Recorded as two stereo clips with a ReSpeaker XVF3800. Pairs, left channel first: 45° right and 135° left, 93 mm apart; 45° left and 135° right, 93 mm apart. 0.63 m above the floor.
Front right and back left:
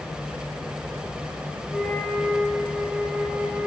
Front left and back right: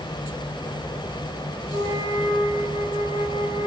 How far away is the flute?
About 2.5 m.